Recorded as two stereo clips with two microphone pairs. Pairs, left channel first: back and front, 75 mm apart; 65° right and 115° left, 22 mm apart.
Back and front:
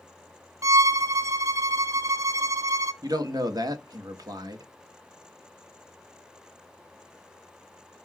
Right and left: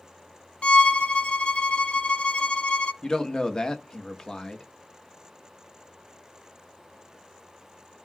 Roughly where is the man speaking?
Ahead.